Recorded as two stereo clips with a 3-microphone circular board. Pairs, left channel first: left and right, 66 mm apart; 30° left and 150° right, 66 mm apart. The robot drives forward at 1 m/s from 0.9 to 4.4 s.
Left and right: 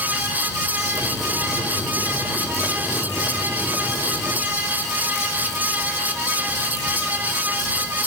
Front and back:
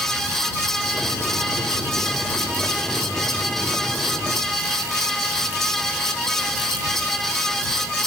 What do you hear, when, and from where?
Only background noise.